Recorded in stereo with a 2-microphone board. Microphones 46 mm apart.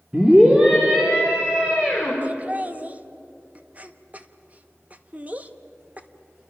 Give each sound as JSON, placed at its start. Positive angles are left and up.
{"t": 0.1, "sound": "a scream", "side_deg": -20, "distance_m": 2.0}
{"t": 2.2, "sound": "laughter", "side_deg": -35, "distance_m": 1.0}